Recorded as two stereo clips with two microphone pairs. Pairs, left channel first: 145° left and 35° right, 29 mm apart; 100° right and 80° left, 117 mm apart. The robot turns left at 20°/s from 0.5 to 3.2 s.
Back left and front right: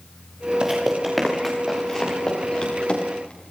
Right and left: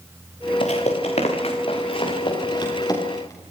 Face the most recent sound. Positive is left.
turn(degrees=-165)